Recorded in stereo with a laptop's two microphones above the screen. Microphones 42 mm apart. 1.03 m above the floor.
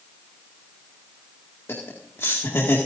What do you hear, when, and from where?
1.7 s laughter: 75° left (ahead or behind), 2 m; by 2.8 s 80° left, 2 m